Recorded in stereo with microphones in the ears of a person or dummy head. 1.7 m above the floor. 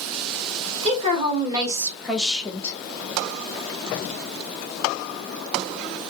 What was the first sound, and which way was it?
A woman speaking, 40° right (ahead or behind).